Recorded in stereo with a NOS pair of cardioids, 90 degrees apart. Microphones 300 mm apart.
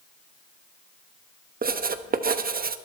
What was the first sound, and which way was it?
Writing, 30° right.